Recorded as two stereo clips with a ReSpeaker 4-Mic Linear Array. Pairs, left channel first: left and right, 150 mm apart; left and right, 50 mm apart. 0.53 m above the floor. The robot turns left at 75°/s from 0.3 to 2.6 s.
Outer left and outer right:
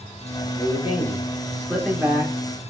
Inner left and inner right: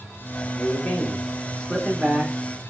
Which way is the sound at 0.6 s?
95° left.